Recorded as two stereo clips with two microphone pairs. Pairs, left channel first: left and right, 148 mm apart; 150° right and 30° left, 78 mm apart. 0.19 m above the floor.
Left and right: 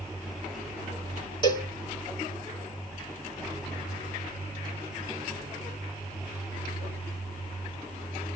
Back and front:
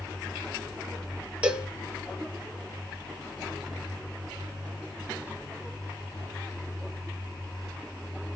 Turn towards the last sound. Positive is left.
turn(degrees=90)